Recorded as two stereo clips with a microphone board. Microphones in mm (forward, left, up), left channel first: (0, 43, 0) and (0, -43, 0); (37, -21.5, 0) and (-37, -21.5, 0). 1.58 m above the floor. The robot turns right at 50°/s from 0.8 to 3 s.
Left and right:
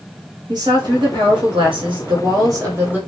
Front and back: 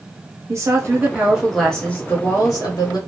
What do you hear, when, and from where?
0.5 s a woman speaking: 125° right, 1.2 m; by 3.0 s 15° right, 1.2 m